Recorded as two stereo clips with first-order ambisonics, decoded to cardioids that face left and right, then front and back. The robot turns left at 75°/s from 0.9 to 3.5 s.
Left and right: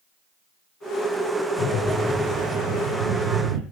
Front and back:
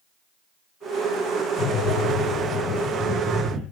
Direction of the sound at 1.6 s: 40° left.